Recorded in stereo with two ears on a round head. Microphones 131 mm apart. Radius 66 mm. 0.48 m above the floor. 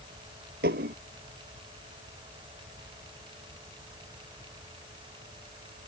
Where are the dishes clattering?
75° right (ahead or behind).